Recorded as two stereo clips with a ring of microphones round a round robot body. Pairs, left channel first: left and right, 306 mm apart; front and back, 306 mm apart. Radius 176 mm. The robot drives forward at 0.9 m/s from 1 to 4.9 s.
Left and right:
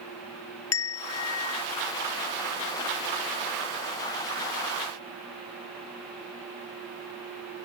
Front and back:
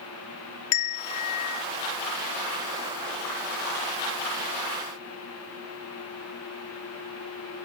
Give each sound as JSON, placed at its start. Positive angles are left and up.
{"t": 0.7, "sound": "a bell", "azimuth_deg": 40}